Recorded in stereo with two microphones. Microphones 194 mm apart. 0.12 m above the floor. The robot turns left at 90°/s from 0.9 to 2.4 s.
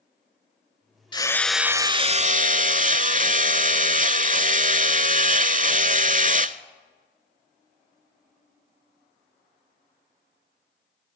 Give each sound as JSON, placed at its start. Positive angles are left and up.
{"t": 1.1, "sound": "hammering", "azimuth_deg": 35, "distance_m": 0.5}